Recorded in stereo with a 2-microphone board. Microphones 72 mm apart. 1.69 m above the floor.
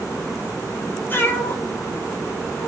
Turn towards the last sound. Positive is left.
turn(degrees=50)  # may be behind; listen again after turning